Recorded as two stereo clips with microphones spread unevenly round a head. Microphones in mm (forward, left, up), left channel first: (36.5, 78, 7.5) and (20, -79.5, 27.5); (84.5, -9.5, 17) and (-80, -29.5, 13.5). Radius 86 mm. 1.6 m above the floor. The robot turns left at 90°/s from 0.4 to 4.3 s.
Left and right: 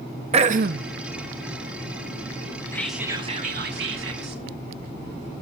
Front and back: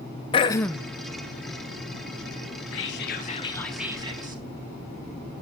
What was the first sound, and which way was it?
Throat clearing, 50° right.